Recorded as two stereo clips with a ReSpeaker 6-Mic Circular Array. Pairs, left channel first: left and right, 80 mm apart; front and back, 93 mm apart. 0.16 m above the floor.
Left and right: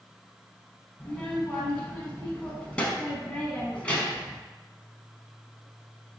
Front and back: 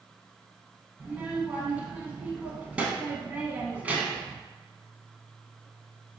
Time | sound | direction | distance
1.0 | a child speaking | 135° left | 0.6 m